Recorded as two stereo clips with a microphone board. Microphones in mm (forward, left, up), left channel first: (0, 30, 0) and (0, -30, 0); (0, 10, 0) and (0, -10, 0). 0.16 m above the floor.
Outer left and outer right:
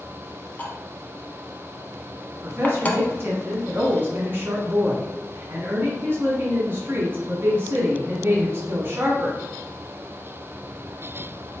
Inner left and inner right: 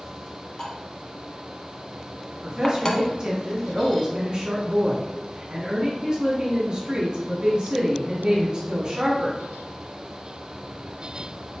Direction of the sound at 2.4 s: 35° right (ahead or behind).